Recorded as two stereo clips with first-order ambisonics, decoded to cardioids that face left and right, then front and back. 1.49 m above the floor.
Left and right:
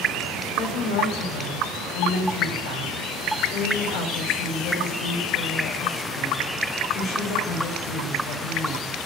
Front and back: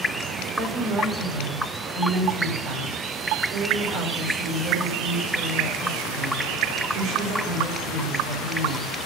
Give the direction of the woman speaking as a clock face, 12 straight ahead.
8 o'clock.